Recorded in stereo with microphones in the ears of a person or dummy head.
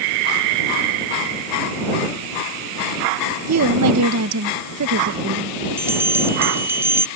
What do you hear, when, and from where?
3.5 s a woman speaking: 75° right (ahead or behind)
5.8 s a bell: 15° right (ahead or behind)